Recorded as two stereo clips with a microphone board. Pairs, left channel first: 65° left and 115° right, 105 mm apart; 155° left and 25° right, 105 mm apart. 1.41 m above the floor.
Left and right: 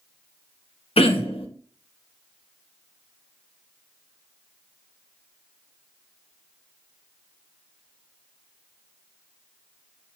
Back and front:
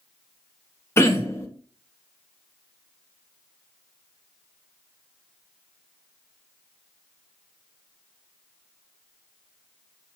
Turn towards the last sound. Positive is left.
turn(degrees=95)